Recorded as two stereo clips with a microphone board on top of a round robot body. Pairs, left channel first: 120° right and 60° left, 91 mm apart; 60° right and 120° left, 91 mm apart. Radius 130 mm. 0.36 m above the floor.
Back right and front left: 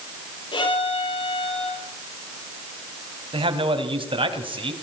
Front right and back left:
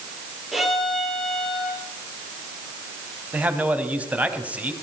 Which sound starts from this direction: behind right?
A violin, at 0.5 s.